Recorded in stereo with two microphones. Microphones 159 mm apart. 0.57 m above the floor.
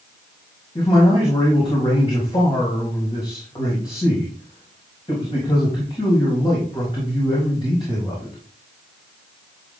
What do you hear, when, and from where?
0.8 s a man speaking: 35° left (ahead or behind), 4 m